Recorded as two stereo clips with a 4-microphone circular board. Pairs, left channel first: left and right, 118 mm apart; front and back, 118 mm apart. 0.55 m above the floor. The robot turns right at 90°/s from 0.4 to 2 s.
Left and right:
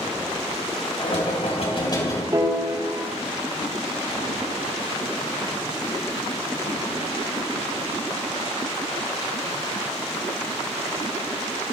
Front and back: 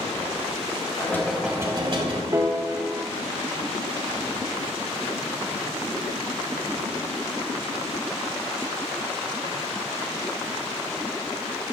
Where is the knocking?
55° left, 3.5 m; by 2.2 s 150° left, 3.5 m.